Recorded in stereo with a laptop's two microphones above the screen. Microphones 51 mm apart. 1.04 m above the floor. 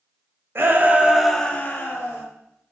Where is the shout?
45° right (ahead or behind), 0.7 m; by 2.2 s 55° left (ahead or behind), 0.9 m.